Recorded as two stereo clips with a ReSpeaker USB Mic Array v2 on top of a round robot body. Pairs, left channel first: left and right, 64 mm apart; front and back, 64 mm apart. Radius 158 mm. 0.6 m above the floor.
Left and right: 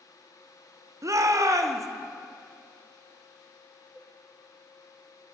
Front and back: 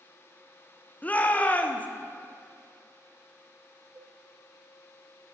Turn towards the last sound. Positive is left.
turn(degrees=-170)